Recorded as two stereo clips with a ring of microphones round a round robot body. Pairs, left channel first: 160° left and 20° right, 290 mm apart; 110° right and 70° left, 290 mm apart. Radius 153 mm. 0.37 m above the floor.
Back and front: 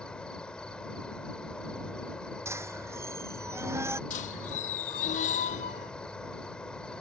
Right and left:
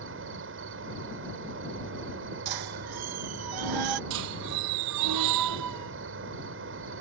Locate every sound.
0.0 s an insect: 70° left
2.5 s a squeak: 60° left
4.1 s a squeak: 95° left